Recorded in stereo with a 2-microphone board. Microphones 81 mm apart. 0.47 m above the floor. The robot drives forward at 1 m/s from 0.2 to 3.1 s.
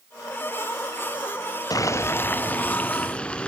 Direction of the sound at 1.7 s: 55° left (ahead or behind).